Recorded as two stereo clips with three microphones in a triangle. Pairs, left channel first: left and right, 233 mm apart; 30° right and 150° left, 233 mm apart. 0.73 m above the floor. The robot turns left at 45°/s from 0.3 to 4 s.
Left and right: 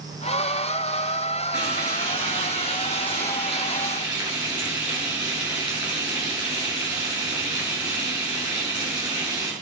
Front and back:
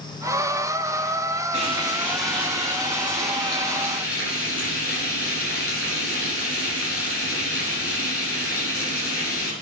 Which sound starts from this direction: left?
Frying, at 1.5 s.